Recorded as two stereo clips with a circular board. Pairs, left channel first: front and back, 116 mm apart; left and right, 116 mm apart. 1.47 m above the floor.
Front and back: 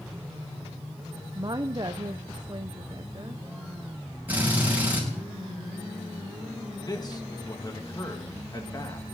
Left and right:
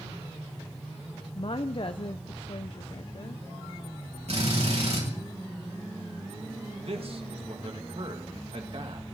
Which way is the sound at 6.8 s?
55° right.